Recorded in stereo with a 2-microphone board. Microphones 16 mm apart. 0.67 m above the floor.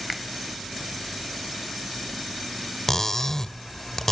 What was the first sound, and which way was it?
A finger snap, 10° right (ahead or behind).